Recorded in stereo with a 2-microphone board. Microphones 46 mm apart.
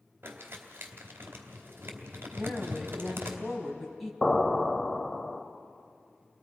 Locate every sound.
0.2 s crumpling: 50° right (ahead or behind), 2.5 m
2.4 s a woman speaking: centre (ahead or behind), 3.5 m
4.2 s an explosion: 10° left (ahead or behind), 1.1 m